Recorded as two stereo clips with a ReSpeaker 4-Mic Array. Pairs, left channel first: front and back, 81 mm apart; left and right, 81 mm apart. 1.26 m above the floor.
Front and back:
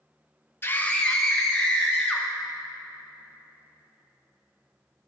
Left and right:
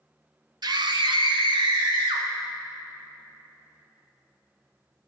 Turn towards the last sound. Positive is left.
turn(degrees=-95)